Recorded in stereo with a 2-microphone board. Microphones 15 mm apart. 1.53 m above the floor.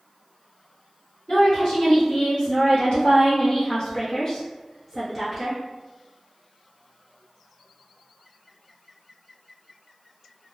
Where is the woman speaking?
60° left (ahead or behind), 1.8 m; by 5.6 s 5° right (ahead or behind), 1.1 m.